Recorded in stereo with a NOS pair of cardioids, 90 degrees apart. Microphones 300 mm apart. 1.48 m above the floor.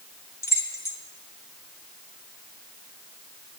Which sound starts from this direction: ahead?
Keys jangling, at 0.4 s.